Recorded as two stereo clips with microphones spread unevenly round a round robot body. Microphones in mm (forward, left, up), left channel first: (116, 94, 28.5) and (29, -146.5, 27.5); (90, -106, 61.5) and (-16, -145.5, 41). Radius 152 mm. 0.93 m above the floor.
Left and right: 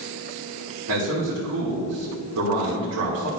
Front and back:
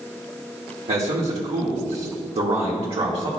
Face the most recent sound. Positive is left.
turn(degrees=-145)